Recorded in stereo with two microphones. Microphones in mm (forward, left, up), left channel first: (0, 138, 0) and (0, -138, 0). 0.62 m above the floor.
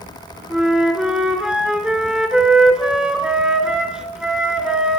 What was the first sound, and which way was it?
A flute, 5° right (ahead or behind).